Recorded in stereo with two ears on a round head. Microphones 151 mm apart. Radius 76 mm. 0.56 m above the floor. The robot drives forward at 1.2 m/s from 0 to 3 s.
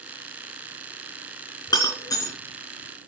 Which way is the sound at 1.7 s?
25° left (ahead or behind).